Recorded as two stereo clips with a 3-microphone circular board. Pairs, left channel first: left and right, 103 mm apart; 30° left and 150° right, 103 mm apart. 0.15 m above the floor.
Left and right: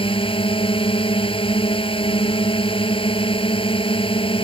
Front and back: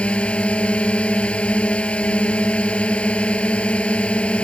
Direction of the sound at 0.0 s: 110° left.